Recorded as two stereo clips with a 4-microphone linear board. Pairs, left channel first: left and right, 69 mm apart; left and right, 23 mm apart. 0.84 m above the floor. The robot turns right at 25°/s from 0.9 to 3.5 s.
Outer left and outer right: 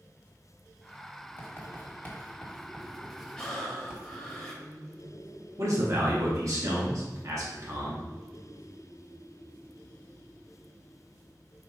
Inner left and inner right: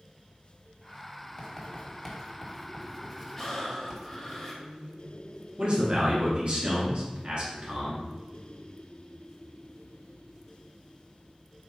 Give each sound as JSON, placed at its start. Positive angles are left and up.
{"t": 1.4, "sound": "writing", "side_deg": 35, "distance_m": 1.2}
{"t": 3.4, "sound": "breathing", "side_deg": 10, "distance_m": 1.3}
{"t": 5.6, "sound": "a man speaking", "side_deg": -50, "distance_m": 1.1}